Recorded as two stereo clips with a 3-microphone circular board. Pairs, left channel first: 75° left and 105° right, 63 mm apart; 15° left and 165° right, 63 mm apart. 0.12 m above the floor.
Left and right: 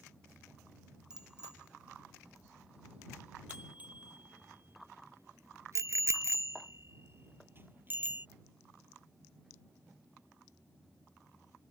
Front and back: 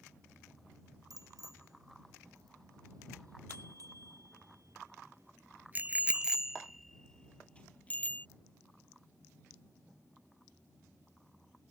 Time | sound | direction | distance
1.1 | a bicycle bell | 175° left | ?